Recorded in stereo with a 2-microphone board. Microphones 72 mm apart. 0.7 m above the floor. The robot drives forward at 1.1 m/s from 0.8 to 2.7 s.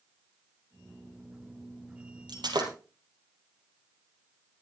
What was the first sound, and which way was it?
Breaking glass, 85° right.